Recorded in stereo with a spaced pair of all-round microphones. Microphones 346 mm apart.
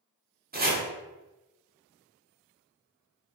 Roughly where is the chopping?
Right.